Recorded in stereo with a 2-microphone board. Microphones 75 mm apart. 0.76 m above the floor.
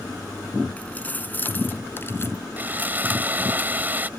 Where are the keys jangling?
20° left (ahead or behind); by 2.4 s 35° left (ahead or behind).